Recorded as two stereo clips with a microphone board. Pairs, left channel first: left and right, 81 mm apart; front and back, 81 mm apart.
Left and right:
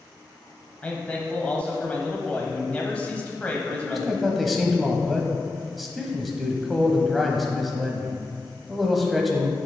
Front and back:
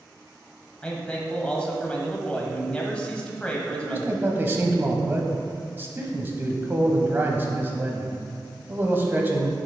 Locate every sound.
0.8 s a man speaking: 50° left, 1.2 m
3.7 s a man speaking: straight behind, 1.1 m